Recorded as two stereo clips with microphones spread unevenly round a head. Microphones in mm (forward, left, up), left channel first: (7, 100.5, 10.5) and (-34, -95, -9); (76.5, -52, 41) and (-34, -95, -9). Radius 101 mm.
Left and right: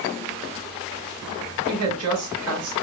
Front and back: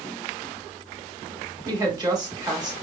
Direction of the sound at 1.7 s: 105° right.